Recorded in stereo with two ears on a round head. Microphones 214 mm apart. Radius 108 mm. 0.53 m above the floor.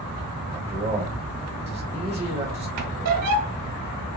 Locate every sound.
0.5 s a man speaking: 30° right (ahead or behind), 2.0 m
2.8 s a squeak: 70° right (ahead or behind), 0.9 m